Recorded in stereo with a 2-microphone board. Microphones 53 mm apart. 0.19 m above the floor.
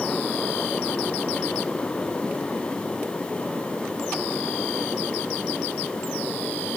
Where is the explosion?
No explosion in this recording.